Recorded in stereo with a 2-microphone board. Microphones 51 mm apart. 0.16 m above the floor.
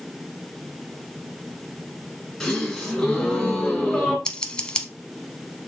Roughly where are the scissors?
Centre.